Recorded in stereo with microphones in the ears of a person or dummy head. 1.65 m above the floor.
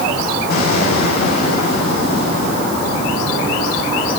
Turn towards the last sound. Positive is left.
turn(degrees=50)  # may be behind; listen again after turning